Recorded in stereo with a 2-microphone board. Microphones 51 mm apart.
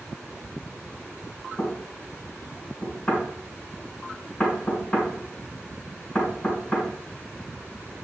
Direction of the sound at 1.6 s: 20° left (ahead or behind).